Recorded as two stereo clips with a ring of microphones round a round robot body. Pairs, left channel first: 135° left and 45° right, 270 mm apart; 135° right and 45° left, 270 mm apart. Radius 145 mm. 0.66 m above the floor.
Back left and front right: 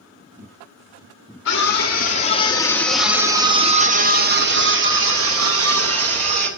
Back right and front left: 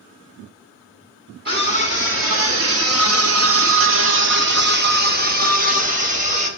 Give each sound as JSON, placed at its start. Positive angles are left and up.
{"t": 1.4, "sound": "a scream", "azimuth_deg": 95, "distance_m": 1.9}